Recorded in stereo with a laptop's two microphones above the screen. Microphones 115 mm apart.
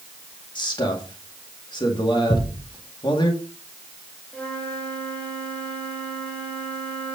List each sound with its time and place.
0.6 s a man speaking: 45° left (ahead or behind), 1.9 m
2.3 s a thud: 40° left (ahead or behind), 4.5 m
4.3 s a flute: 10° left (ahead or behind), 2.5 m